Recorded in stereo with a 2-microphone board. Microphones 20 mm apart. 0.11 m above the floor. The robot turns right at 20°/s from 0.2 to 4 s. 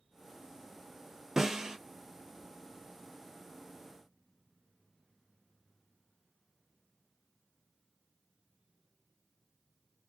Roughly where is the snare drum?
Right.